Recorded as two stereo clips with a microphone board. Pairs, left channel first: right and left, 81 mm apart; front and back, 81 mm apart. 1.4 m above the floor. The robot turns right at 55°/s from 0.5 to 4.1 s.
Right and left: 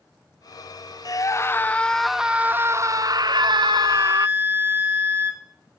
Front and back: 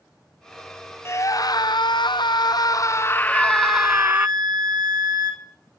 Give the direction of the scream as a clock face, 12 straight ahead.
2 o'clock.